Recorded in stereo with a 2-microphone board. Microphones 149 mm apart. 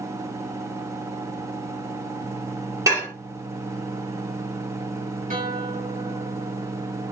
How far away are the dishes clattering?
About 1.2 m.